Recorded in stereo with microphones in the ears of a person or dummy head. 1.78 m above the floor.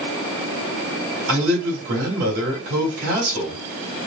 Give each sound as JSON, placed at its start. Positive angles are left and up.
{"t": 1.3, "sound": "a man speaking", "side_deg": -75, "distance_m": 3.0}